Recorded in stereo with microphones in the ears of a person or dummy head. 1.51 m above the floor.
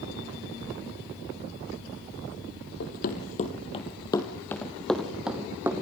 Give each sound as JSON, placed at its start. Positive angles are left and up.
{"t": 2.8, "sound": "running footsteps", "side_deg": 45, "distance_m": 2.5}